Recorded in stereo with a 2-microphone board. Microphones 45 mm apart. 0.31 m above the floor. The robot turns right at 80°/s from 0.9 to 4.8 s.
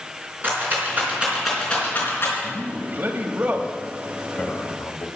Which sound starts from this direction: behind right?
A man speaking, at 2.4 s.